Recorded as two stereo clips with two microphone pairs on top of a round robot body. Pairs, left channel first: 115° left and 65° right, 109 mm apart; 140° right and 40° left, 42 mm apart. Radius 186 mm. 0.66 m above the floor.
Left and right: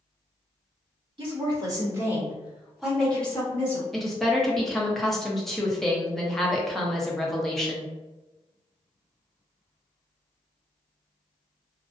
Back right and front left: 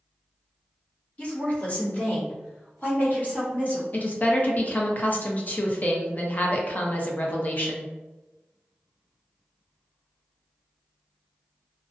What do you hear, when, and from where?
1.2 s a woman speaking: 90° right, 1.5 m; by 3.8 s 175° left, 1.7 m
3.9 s a woman speaking: 160° right, 0.8 m